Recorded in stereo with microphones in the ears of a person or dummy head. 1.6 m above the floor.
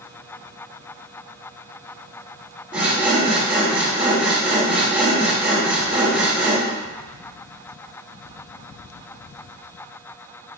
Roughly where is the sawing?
Centre.